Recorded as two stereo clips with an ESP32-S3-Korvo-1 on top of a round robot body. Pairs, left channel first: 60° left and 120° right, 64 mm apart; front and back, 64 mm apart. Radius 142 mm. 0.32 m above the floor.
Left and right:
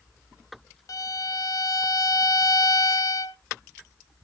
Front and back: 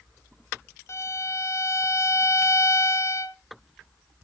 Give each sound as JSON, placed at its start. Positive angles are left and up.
{"t": 0.9, "sound": "a violin", "azimuth_deg": 40, "distance_m": 0.6}